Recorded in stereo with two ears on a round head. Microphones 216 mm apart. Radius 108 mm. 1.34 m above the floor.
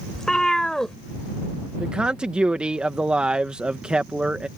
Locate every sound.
0.1 s a cat meowing: centre (ahead or behind)
1.8 s a man speaking: 5° right (ahead or behind)